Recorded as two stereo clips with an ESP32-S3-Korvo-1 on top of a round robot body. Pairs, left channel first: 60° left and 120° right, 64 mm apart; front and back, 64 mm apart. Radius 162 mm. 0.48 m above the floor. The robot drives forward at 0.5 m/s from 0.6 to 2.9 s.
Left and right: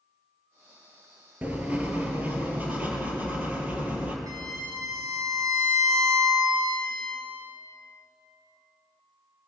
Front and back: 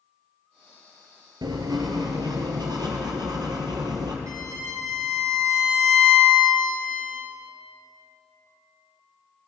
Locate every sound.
1.4 s writing: 175° left, 2 m
4.3 s a violin: 150° right, 6.5 m